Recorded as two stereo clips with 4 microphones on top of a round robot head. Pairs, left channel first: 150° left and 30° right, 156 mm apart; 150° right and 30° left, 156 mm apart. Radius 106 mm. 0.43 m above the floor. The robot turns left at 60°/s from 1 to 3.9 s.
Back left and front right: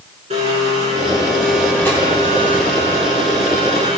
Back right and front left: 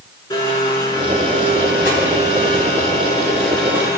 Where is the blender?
80° right, 6 m; by 4.0 s 105° left, 6 m.